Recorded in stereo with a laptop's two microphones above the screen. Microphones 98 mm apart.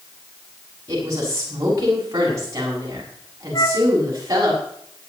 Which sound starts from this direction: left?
A flute, at 3.5 s.